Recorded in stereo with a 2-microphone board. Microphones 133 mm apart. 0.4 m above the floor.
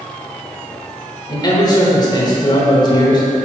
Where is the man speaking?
30° left (ahead or behind), 1.2 m.